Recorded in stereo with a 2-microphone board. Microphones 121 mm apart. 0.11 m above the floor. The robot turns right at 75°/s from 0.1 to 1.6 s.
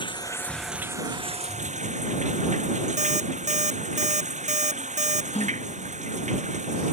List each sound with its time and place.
0.0 s running water: 140° left; by 6.9 s 105° right
3.0 s an alarm clock: 70° right (ahead or behind)
5.3 s a gasp: 60° left (ahead or behind)